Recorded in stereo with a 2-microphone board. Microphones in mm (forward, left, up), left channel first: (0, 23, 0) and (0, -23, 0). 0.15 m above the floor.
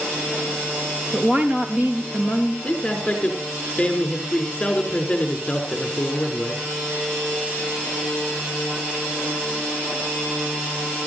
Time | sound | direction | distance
1.1 | a woman speaking | 30° right (ahead or behind) | 3 m
2.6 | a man speaking | 20° left (ahead or behind) | 5 m